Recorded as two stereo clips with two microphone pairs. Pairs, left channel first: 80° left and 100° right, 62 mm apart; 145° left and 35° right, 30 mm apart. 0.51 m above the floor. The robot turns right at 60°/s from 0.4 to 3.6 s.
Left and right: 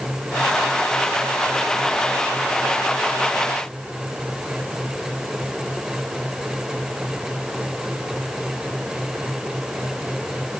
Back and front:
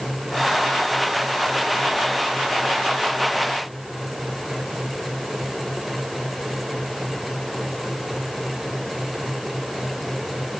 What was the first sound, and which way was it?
Only background noise.